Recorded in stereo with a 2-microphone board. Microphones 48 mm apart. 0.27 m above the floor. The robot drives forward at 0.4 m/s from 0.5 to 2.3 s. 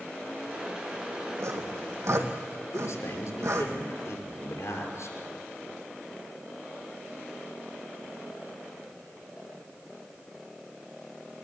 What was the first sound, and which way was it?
Sawing, 75° right (ahead or behind).